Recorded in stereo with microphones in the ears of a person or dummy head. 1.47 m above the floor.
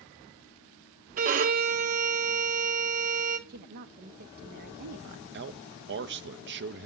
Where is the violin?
40° right (ahead or behind), 0.5 m.